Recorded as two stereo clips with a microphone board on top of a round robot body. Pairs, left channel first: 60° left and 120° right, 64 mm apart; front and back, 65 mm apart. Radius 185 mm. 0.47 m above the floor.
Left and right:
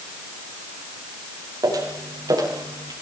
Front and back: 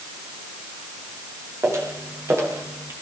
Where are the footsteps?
135° right, 10 m; by 2.9 s 130° right, 9.5 m.